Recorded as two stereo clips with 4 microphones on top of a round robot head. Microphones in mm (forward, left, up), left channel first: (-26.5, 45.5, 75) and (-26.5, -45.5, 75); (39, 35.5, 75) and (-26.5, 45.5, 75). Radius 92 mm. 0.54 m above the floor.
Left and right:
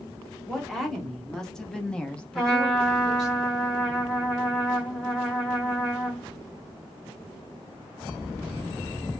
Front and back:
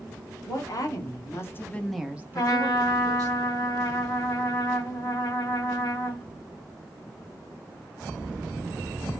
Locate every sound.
0.5 s a woman speaking: straight ahead, 1.3 m; by 3.4 s 175° left, 1.2 m
2.4 s a trumpet: 5° left, 1.6 m